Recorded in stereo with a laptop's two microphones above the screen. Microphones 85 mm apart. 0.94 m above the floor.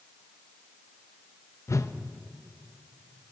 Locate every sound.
1.7 s a whoosh: 35° left (ahead or behind), 0.6 m